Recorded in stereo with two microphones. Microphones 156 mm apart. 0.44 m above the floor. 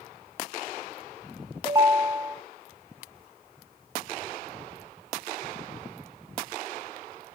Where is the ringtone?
25° right (ahead or behind), 0.6 m.